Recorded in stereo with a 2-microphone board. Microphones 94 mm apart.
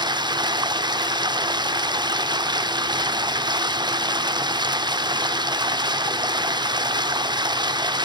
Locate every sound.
0.0 s running water: 50° right (ahead or behind), 0.7 m